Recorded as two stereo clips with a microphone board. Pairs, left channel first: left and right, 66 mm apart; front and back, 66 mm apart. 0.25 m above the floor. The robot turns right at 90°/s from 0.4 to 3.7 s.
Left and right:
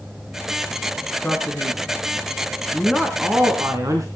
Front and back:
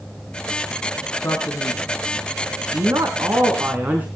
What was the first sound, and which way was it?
A man speaking, 20° left.